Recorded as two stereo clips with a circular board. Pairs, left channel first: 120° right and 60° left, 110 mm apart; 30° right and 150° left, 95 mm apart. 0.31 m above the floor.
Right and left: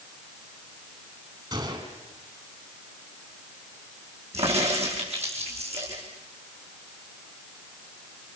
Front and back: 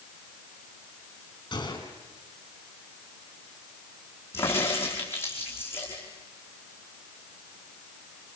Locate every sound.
1.5 s a gunshot: 15° left, 4.5 m
4.3 s a crack: 35° left, 5.5 m